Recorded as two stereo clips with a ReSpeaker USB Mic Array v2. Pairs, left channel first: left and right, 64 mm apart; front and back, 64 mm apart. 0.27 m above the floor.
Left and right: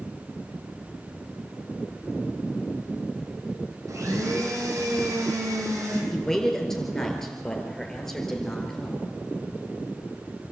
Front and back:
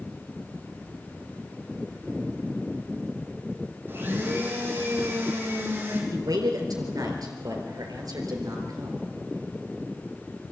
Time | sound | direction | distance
3.9 | a blender | 125° right | 4 m
6.1 | a man speaking | 170° left | 4 m